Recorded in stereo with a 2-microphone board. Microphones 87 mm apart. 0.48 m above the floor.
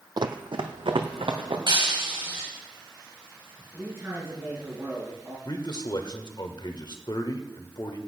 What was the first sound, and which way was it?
Running footsteps, 55° right (ahead or behind).